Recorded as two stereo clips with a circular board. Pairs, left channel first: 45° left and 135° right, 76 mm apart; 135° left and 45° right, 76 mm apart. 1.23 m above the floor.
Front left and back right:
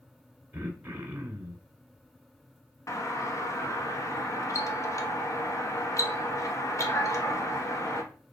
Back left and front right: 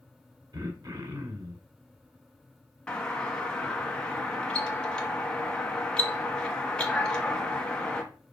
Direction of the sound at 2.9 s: 60° left.